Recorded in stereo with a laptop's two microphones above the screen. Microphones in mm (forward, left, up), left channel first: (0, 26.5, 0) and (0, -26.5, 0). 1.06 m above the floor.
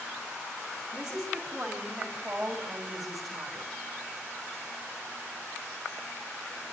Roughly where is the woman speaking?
Centre.